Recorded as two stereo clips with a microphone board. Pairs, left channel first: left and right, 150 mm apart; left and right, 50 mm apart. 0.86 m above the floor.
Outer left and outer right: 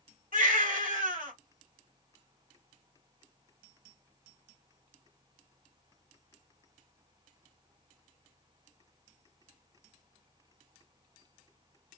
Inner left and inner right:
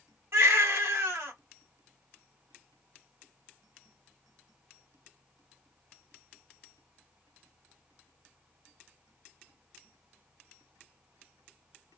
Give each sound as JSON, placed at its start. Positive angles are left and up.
{"t": 0.3, "sound": "a baby crying", "side_deg": -65, "distance_m": 2.0}